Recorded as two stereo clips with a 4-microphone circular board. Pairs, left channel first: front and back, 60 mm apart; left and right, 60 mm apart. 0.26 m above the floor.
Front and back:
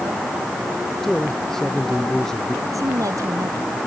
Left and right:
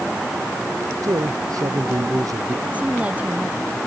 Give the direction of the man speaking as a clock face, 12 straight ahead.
3 o'clock.